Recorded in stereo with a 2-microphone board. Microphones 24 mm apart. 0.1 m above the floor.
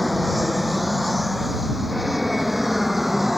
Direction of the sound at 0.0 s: Centre (ahead or behind).